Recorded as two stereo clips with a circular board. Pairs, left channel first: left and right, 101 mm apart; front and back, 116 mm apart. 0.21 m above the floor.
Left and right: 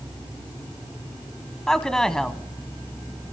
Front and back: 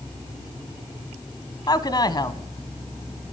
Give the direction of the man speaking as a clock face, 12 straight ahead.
12 o'clock.